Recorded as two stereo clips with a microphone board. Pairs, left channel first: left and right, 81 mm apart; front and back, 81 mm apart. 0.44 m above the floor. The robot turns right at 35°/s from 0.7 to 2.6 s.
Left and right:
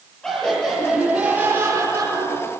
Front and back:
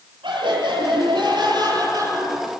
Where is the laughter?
170° left, 8.5 m; by 2.5 s 125° right, 8.5 m.